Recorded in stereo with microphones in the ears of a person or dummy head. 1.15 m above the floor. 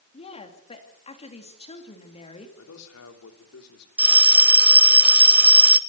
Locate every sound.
0.1 s a woman speaking: 30° left (ahead or behind), 2.5 m
2.6 s a man speaking: 85° left, 3 m
4.0 s a bell: 10° right (ahead or behind), 0.6 m